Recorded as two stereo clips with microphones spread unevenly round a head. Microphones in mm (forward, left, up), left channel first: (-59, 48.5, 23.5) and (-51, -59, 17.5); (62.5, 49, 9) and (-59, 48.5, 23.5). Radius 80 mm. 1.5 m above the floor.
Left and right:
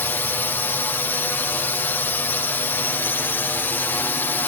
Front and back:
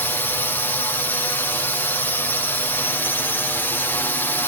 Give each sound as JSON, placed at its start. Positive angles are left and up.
{"t": 0.0, "sound": "a drone", "azimuth_deg": 40}